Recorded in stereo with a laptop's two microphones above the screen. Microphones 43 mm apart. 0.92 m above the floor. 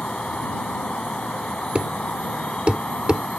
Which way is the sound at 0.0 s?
25° left (ahead or behind).